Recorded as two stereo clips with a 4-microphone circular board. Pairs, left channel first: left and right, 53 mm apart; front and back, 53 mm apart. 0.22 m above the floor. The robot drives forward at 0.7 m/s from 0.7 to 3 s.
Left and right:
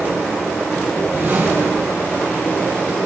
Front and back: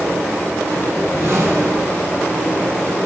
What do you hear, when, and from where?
0.9 s a whoosh: 145° right, 3 m; by 2.2 s 150° right, 3.5 m